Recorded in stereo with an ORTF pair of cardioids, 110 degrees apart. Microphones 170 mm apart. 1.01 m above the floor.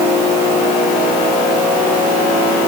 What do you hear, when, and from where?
Only background noise.